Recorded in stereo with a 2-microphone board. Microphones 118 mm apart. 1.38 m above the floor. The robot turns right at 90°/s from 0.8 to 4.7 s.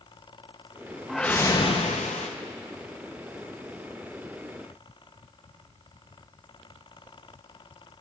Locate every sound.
1.1 s a whoosh: 5° right, 0.8 m; by 2.3 s 105° left, 0.8 m